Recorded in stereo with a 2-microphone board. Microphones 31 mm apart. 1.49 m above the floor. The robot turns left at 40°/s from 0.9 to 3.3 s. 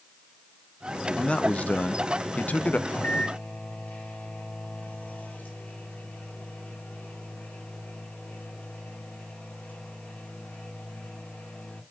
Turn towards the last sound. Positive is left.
turn(degrees=85)